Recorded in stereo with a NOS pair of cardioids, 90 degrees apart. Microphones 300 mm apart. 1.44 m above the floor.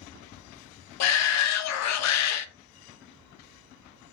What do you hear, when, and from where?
1.0 s a shout: 65° left, 0.5 m